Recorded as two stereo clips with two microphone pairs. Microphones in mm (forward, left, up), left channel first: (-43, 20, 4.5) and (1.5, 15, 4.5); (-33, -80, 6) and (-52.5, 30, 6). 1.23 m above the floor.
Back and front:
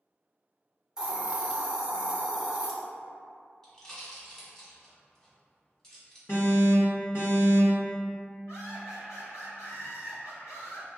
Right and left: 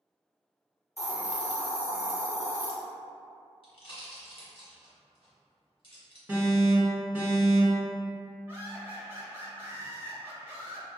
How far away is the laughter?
About 1.1 m.